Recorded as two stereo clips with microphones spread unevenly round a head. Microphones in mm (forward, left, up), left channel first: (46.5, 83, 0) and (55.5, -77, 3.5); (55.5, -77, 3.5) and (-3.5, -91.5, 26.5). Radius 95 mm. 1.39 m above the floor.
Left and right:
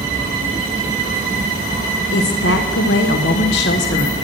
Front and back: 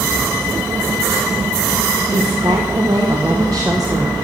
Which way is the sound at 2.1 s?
125° left.